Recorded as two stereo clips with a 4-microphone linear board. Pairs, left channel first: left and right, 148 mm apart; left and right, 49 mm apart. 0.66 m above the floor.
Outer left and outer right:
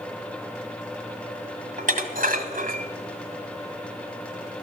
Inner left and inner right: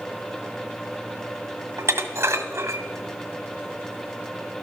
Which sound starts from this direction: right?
Dishes clattering, at 1.8 s.